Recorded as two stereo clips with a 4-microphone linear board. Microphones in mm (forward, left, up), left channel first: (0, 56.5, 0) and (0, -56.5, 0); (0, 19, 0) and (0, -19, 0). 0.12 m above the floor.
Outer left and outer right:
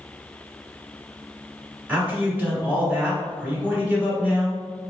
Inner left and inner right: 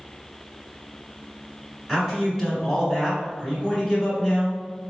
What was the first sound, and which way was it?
A man speaking, 15° right (ahead or behind).